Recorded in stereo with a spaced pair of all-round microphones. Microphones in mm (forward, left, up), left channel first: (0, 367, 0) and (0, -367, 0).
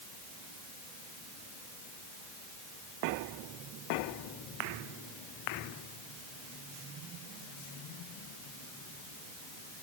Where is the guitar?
No guitar in this recording.